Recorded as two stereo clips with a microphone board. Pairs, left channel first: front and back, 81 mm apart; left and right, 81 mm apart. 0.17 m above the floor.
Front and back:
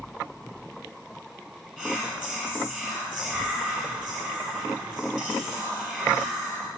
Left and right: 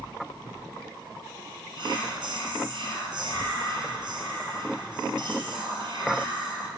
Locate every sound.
1.8 s whispering: 90° right, 3.5 m